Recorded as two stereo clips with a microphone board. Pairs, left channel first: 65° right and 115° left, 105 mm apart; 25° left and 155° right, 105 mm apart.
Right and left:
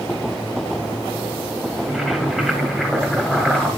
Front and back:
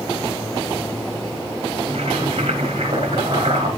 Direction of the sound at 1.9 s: 160° right.